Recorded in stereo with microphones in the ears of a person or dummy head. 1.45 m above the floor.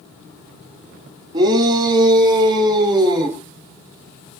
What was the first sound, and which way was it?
A shout, 25° right (ahead or behind).